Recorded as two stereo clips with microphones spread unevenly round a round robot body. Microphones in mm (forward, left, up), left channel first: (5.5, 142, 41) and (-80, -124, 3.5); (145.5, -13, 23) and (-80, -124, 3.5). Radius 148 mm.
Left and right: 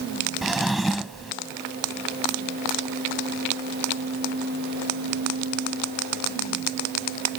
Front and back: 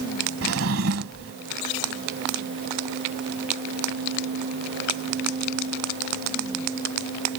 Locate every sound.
0.4 s a drawer: 160° left